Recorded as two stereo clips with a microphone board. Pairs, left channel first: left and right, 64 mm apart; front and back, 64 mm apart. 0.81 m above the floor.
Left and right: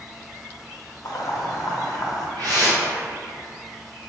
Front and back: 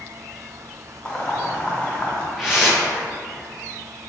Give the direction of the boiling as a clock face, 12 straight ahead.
10 o'clock.